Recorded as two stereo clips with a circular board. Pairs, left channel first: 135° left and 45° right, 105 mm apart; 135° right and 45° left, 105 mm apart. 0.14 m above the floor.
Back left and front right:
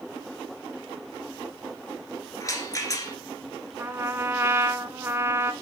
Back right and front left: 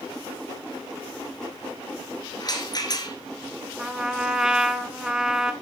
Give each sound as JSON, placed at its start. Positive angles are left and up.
{"t": 2.4, "sound": "a rattle", "azimuth_deg": -175, "distance_m": 1.8}
{"t": 3.8, "sound": "a trumpet", "azimuth_deg": -30, "distance_m": 0.6}